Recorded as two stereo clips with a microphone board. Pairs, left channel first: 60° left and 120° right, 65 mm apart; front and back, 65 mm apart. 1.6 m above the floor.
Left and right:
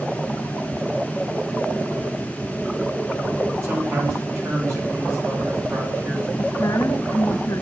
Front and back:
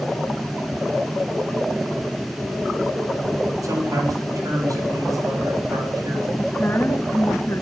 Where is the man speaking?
160° right, 6 m.